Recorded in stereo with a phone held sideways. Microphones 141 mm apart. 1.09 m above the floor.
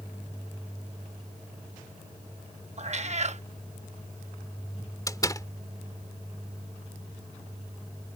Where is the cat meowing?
50° right (ahead or behind).